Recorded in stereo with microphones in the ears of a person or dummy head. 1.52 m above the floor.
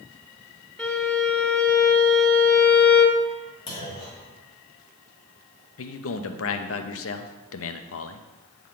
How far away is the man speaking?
About 0.6 m.